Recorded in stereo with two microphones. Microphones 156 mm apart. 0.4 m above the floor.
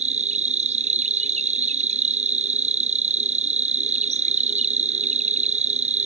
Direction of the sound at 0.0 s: 50° right (ahead or behind).